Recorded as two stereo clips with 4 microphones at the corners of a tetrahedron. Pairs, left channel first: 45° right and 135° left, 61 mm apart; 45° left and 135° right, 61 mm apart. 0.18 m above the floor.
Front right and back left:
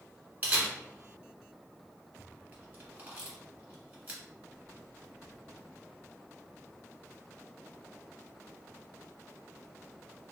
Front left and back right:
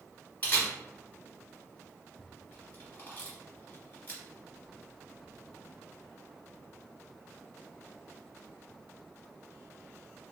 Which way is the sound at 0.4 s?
90° left.